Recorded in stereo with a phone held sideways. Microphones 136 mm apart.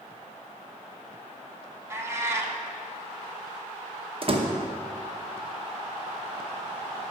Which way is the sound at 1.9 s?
20° right (ahead or behind).